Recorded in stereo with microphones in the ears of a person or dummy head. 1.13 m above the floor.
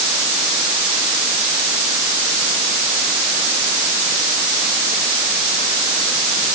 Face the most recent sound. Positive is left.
No sound to turn to.